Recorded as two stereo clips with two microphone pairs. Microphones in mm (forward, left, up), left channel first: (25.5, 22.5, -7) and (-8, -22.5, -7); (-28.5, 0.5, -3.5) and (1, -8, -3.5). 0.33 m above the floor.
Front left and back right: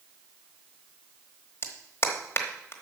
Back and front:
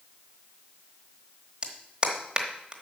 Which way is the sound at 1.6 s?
35° left.